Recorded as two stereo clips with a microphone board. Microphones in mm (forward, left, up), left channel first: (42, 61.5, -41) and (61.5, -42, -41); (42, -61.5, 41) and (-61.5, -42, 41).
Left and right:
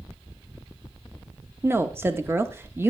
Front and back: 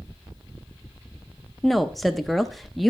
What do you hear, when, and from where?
1.6 s a woman speaking: 100° right, 0.6 m